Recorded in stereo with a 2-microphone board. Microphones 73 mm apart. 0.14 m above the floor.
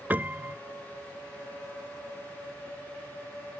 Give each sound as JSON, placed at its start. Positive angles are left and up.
{"t": 0.1, "sound": "a piano", "side_deg": -25}